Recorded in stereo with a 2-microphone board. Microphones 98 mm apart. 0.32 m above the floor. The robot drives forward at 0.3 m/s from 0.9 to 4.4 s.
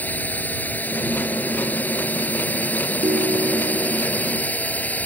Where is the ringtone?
70° right (ahead or behind).